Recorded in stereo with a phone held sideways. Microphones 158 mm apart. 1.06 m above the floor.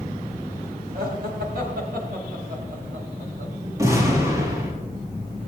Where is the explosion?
20° right (ahead or behind), 4.5 m.